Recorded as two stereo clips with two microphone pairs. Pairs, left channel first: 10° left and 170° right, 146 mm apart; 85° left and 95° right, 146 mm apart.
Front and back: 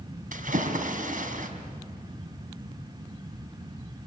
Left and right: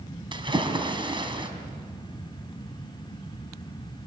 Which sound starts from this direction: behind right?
A splash, at 0.3 s.